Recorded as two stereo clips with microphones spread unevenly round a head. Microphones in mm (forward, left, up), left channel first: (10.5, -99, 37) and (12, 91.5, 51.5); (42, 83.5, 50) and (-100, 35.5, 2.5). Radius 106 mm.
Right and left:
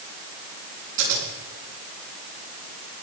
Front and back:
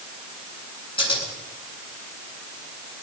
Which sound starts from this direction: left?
Scissors, at 1.0 s.